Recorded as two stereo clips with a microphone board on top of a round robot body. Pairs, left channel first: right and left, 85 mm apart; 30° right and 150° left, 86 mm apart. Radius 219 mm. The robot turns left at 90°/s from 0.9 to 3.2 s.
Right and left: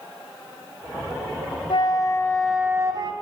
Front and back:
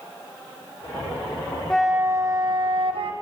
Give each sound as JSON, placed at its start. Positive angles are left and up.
{"t": 1.7, "sound": "a flute", "azimuth_deg": -110, "distance_m": 3.0}